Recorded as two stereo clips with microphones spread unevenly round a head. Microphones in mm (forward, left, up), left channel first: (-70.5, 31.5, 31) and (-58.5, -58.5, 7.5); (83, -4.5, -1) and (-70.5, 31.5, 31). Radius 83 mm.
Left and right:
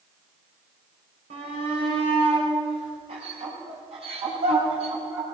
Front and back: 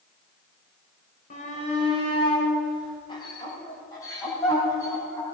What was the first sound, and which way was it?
A shout, 60° right.